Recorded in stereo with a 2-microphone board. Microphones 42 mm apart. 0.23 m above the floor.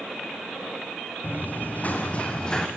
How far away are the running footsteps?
About 3.5 m.